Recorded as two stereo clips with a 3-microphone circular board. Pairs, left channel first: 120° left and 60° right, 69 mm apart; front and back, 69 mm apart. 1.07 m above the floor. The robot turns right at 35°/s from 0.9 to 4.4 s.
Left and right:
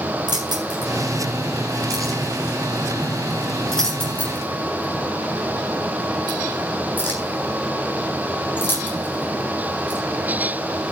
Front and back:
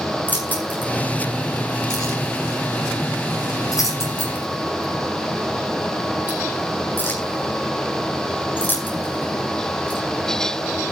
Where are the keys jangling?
60° right, 9 m; by 10.0 s 60° left, 9 m.